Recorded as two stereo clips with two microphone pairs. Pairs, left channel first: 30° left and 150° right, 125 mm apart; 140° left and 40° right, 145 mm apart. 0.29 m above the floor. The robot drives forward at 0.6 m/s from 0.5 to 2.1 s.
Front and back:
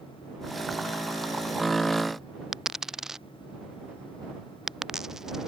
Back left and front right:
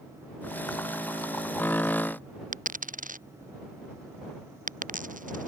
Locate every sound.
2.5 s a dropped coin: 65° right